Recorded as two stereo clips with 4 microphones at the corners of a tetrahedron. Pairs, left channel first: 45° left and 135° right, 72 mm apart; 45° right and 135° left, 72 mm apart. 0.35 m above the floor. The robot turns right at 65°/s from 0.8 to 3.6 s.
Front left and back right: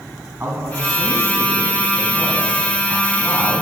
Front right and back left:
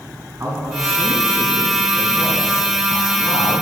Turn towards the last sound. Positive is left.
turn(degrees=0)